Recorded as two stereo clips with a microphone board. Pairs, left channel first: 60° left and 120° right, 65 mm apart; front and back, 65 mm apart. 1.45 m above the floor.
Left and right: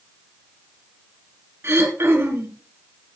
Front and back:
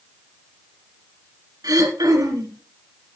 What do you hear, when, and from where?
1.6 s throat clearing: 170° right, 4 m